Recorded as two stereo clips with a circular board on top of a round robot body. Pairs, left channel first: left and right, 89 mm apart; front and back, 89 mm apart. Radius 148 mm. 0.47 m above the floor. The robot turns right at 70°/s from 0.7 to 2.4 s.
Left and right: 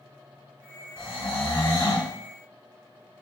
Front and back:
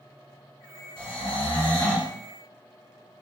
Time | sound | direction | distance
1.0 | snoring | 30° right | 1.1 m